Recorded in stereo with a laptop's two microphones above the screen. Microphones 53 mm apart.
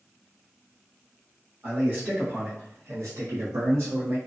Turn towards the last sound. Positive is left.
turn(degrees=-50)  # may be behind; listen again after turning